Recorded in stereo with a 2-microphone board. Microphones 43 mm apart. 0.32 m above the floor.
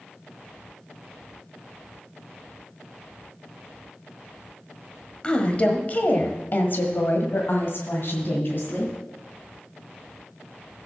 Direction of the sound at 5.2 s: 25° left (ahead or behind).